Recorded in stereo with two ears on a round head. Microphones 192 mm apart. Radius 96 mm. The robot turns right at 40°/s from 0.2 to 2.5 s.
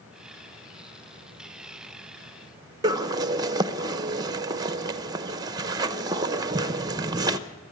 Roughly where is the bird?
Centre.